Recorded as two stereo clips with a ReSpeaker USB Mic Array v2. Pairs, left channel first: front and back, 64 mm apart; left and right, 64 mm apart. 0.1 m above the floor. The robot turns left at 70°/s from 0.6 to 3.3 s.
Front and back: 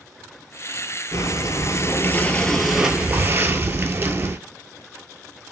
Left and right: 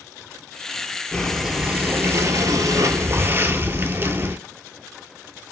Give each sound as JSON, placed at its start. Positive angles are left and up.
{"t": 1.1, "sound": "breathing", "azimuth_deg": 20, "distance_m": 0.5}